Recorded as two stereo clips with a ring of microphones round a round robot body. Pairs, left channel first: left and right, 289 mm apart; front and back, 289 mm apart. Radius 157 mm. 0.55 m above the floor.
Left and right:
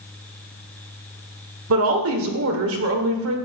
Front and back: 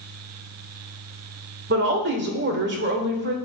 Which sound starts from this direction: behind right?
A woman speaking, at 1.7 s.